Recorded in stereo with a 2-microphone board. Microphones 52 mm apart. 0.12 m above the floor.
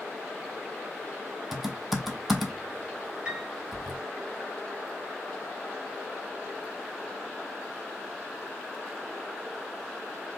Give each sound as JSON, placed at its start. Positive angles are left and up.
{"t": 1.5, "sound": "typing on a keyboard", "side_deg": -5, "distance_m": 1.2}
{"t": 3.2, "sound": "a piano", "side_deg": -20, "distance_m": 2.0}